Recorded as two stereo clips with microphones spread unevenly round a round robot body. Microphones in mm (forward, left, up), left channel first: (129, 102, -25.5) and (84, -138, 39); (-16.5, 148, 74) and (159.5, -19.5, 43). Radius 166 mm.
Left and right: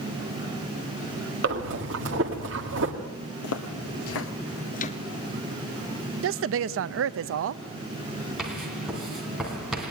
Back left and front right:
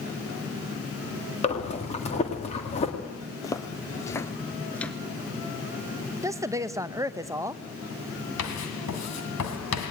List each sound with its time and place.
1.4 s breathing: 155° right, 1.8 m
3.4 s footsteps: 65° left, 1.5 m; by 5.0 s 125° left, 0.8 m
6.2 s a woman speaking: 105° right, 0.5 m
8.4 s writing: 175° left, 2 m